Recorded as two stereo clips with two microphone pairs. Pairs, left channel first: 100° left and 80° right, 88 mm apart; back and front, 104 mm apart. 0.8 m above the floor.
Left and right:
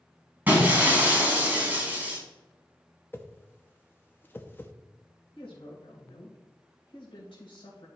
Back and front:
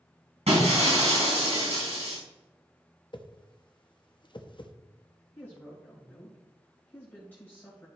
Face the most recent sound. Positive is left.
turn(degrees=105)